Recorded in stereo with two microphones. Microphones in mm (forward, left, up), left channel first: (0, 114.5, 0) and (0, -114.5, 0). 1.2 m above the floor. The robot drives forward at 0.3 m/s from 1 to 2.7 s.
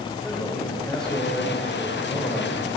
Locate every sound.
0.2 s a man speaking: 5° left (ahead or behind), 4.5 m